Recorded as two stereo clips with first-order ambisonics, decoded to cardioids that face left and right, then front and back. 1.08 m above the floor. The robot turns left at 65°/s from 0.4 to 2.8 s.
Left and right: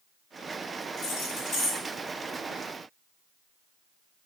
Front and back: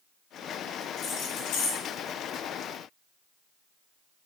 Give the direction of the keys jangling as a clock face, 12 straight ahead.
10 o'clock.